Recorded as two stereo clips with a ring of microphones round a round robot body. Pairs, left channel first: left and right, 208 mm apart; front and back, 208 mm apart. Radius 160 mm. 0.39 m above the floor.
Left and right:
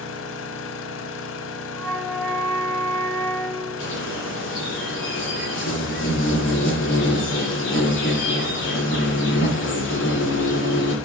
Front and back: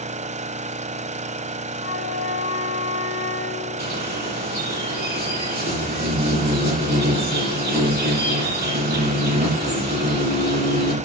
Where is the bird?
140° left, 7.5 m.